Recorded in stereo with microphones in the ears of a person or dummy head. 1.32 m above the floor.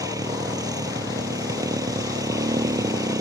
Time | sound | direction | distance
0.0 | a motorcycle | 15° right (ahead or behind) | ?